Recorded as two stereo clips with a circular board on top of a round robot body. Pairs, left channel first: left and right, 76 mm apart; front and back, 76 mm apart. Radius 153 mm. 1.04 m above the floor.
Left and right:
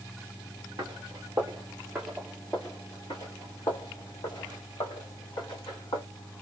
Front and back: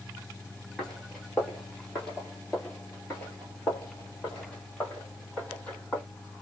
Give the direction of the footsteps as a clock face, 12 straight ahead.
3 o'clock.